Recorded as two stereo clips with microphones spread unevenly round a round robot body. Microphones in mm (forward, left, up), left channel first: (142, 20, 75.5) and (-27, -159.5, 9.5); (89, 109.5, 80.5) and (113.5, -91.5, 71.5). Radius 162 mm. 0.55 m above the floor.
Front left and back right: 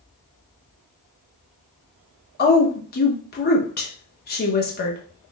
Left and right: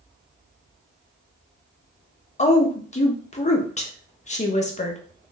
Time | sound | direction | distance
2.4 | a woman speaking | 85° left | 0.7 m